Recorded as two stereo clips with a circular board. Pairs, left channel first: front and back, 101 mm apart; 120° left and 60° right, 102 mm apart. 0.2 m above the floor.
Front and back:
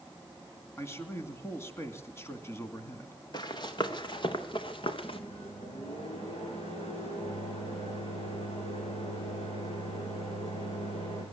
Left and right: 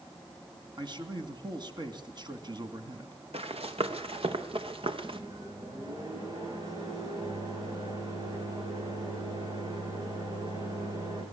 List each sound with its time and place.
0.8 s a man speaking: 55° right, 2 m
3.3 s running footsteps: 45° right, 3 m; by 5.2 s 30° right, 2.5 m
5.0 s a microwave: 5° right, 9.5 m